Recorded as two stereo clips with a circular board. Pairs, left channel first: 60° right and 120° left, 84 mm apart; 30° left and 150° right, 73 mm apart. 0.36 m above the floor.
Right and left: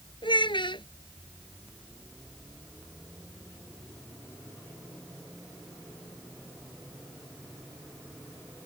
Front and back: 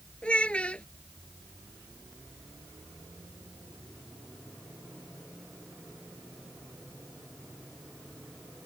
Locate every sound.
0.2 s a child speaking: 45° right